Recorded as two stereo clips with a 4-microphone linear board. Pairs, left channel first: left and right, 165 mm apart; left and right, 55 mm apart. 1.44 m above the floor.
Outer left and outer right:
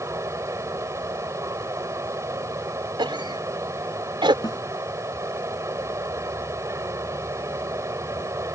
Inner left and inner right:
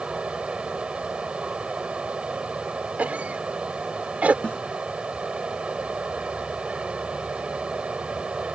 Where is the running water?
20° right (ahead or behind).